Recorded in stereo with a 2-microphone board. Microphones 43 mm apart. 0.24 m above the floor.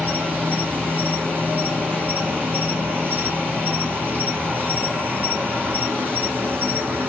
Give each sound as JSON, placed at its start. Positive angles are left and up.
{"t": 0.0, "sound": "an insect", "side_deg": -50, "distance_m": 1.1}